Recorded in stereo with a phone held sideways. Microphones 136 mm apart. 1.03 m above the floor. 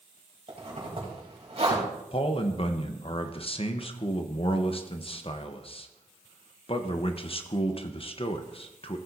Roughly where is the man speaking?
Left.